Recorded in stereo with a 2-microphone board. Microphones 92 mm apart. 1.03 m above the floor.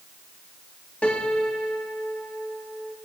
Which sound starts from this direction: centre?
A piano, at 1.0 s.